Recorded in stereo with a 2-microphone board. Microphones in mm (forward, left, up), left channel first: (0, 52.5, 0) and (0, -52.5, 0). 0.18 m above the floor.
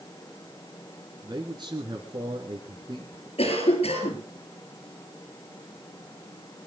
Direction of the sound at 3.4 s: 70° left (ahead or behind).